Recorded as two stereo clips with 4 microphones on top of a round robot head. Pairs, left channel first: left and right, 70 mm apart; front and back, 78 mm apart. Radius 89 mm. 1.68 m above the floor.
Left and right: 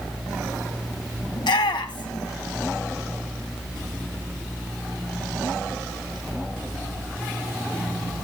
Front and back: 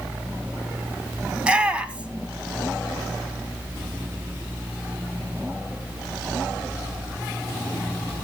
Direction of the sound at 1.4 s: 105° left.